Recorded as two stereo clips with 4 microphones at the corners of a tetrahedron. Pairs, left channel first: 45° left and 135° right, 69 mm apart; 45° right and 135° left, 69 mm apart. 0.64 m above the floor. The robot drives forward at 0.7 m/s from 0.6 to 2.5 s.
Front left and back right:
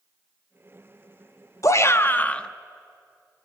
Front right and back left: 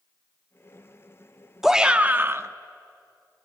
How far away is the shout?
About 0.8 m.